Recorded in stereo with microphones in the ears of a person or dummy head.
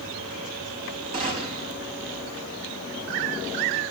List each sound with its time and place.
1.1 s a gunshot: 45° right (ahead or behind), 3 m